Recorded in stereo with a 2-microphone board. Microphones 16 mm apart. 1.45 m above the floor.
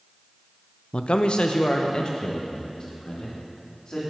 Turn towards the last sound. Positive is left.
turn(degrees=50)  # may be behind; listen again after turning